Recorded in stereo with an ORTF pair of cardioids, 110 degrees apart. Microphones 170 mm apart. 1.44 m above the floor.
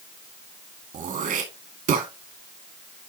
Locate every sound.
0.9 s throat clearing: 55° right, 2.5 m